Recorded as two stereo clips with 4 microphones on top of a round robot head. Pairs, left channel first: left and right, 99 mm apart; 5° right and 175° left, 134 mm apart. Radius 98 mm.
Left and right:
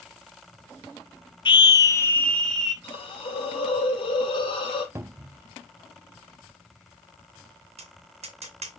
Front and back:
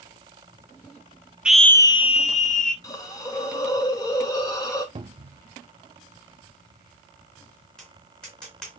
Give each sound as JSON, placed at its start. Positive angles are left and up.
{"t": 1.4, "sound": "a scream", "azimuth_deg": 95, "distance_m": 1.0}
{"t": 2.8, "sound": "a hiss", "azimuth_deg": 60, "distance_m": 2.5}
{"t": 5.0, "sound": "a cupboard door", "azimuth_deg": -145, "distance_m": 0.6}
{"t": 7.8, "sound": "tapping", "azimuth_deg": -90, "distance_m": 2.5}